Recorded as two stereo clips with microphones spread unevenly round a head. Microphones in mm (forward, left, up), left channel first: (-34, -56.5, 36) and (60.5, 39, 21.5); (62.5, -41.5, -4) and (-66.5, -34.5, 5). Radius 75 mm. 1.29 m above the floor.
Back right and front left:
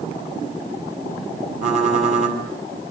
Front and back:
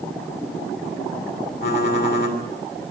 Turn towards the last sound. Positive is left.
turn(degrees=10)